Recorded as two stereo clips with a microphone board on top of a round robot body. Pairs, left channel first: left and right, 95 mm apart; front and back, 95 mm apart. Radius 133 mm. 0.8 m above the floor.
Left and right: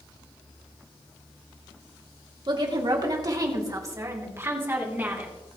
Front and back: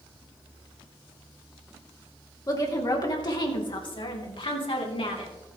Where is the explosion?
I don't hear an explosion.